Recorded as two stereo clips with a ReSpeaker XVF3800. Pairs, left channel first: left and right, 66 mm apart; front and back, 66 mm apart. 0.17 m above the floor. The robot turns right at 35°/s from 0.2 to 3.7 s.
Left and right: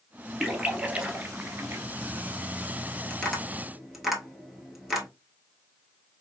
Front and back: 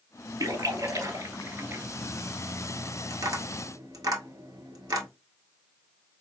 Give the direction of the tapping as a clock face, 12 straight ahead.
7 o'clock.